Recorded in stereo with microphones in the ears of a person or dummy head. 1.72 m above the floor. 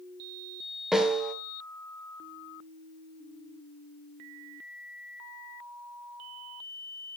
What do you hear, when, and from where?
0.9 s a snare drum: centre (ahead or behind), 1.4 m